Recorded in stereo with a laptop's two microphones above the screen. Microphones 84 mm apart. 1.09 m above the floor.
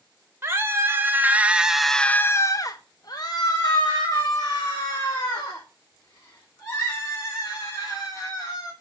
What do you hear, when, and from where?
0.4 s a scream: 30° right (ahead or behind), 1.2 m; by 8.7 s 45° left (ahead or behind), 4.5 m